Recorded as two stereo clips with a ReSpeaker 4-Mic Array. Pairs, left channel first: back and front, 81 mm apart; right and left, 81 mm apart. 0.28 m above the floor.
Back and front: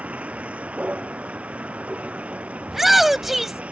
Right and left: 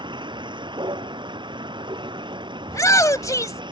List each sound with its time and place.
0.0 s a vehicle: 75° left
2.7 s a shout: 85° right